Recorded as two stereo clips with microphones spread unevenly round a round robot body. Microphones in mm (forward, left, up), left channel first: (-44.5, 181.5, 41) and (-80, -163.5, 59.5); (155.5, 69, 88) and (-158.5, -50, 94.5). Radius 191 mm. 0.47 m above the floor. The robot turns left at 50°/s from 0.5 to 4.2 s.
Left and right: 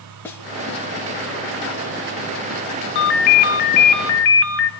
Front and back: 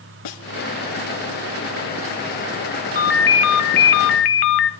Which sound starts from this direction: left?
A ringtone, at 3.0 s.